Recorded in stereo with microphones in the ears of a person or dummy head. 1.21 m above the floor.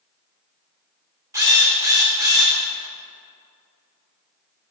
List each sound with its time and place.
1.3 s a drill: 15° right (ahead or behind), 1.1 m